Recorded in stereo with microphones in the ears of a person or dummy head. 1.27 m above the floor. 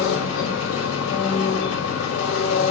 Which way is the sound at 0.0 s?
85° left.